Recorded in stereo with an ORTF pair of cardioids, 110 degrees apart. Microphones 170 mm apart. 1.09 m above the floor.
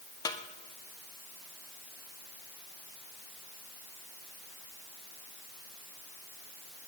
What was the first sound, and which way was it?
A snare drum, 20° left.